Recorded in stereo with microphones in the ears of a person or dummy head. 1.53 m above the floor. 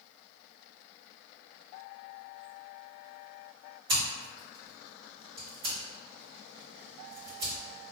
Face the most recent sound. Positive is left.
turn(degrees=-35)  # may be behind; listen again after turning